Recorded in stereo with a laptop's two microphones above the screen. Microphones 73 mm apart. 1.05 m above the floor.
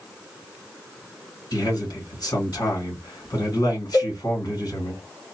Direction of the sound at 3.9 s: 35° left (ahead or behind).